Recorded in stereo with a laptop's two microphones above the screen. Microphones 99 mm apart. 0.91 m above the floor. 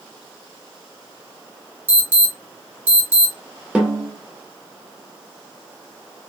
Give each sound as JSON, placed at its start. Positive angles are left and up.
{"t": 1.9, "sound": "an alarm", "side_deg": -20, "distance_m": 1.5}
{"t": 3.8, "sound": "a snare drum", "side_deg": -10, "distance_m": 0.6}